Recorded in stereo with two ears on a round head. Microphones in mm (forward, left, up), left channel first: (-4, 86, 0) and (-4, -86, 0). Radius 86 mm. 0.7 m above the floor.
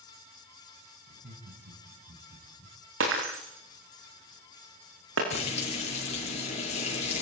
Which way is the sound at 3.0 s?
80° right.